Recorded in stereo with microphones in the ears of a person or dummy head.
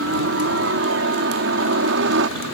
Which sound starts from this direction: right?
A helicopter, at 0.0 s.